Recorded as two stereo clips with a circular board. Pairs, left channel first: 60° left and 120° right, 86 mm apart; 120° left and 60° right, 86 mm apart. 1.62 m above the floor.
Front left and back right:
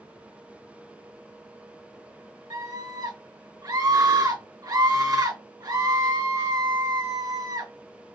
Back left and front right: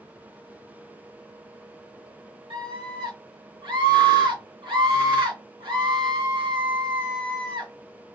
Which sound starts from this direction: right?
A scream, at 2.5 s.